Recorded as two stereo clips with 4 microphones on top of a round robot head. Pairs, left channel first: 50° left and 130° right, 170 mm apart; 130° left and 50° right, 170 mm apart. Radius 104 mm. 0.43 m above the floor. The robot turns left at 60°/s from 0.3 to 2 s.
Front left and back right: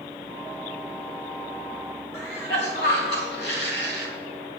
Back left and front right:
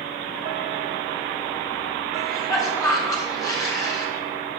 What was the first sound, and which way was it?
A cough, 60° left.